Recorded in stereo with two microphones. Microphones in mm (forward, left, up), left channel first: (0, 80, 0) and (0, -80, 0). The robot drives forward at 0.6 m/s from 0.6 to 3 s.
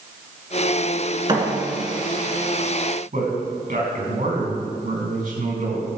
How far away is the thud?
About 2.5 m.